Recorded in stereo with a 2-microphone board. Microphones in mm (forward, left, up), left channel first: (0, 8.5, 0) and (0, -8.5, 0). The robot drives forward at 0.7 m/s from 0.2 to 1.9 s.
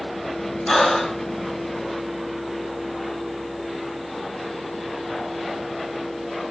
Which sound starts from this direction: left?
Breathing, at 0.7 s.